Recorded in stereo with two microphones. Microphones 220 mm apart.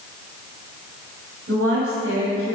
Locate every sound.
1.5 s a woman speaking: 70° right (ahead or behind), 3 m